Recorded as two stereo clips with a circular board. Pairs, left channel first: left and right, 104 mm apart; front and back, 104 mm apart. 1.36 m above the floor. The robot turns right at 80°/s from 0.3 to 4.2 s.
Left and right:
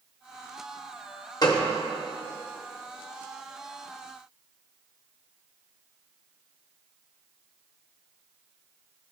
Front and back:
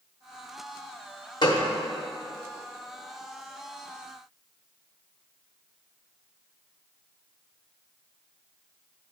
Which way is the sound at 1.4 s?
40° left.